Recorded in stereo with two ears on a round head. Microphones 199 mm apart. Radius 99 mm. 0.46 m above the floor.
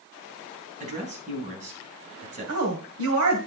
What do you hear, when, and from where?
0.8 s a woman speaking: 35° right (ahead or behind), 3.5 m
2.5 s a woman speaking: 65° right (ahead or behind), 2 m